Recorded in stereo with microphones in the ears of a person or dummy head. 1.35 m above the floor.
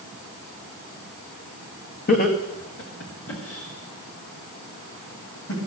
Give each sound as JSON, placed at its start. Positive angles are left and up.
{"t": 2.1, "sound": "laughter", "side_deg": 45, "distance_m": 1.7}